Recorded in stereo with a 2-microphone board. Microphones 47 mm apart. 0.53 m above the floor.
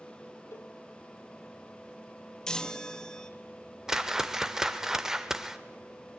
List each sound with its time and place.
0.5 s a cowbell: 65° left (ahead or behind), 1.1 m
2.5 s a chime: 15° left (ahead or behind), 1.1 m
3.9 s a whoosh: 10° right (ahead or behind), 1.2 m